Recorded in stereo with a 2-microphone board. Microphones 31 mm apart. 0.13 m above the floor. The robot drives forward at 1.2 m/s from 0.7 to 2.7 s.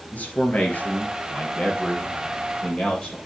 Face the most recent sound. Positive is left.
turn(degrees=25)  # may be behind; listen again after turning